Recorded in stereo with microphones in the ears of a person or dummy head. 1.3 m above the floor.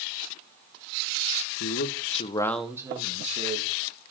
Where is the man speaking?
65° left (ahead or behind), 1.3 m; by 3.7 s 45° right (ahead or behind), 1.8 m.